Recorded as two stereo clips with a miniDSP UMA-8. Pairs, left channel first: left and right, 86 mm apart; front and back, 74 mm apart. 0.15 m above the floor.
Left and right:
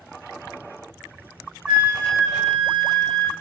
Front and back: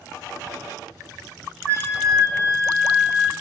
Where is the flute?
165° right, 1.3 m.